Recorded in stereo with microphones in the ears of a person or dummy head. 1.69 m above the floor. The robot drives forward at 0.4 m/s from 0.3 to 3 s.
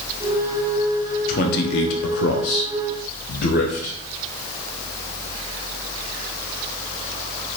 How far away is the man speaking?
About 0.6 m.